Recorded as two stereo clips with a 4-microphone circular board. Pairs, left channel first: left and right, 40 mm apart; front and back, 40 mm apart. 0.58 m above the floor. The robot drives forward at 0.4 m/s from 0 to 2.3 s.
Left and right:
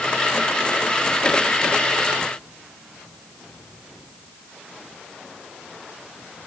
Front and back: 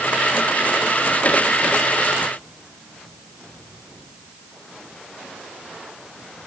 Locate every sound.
Only background noise.